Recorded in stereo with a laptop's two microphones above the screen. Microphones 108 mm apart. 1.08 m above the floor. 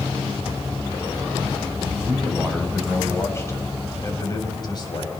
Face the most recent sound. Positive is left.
turn(degrees=45)  # may be behind; listen again after turning